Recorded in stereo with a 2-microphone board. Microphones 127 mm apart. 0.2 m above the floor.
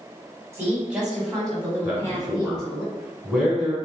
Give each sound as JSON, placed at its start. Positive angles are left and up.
{"t": 0.5, "sound": "a woman speaking", "side_deg": -20, "distance_m": 1.2}
{"t": 1.8, "sound": "a man speaking", "side_deg": -5, "distance_m": 1.6}